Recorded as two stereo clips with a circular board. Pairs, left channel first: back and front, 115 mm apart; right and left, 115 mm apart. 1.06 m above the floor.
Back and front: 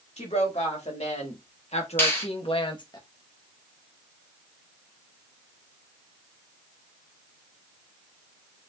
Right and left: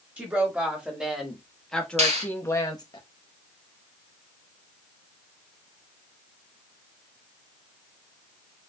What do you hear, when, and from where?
0.2 s a woman speaking: 165° left, 2.5 m; by 3.0 s 130° right, 0.9 m
2.0 s a finger snap: 110° left, 2.0 m